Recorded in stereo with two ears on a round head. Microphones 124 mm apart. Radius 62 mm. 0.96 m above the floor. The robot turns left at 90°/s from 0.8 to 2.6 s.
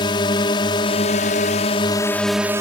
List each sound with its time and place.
0.0 s a drone: 135° left; by 2.6 s 25° right